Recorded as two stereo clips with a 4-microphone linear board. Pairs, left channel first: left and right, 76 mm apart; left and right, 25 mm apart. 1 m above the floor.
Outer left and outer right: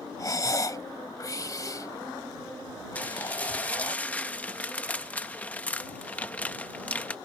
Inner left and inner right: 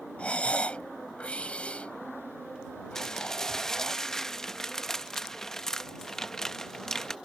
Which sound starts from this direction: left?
Breathing, at 0.2 s.